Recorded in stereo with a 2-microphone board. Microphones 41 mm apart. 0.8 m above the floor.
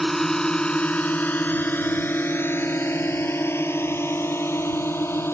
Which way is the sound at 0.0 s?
5° left (ahead or behind).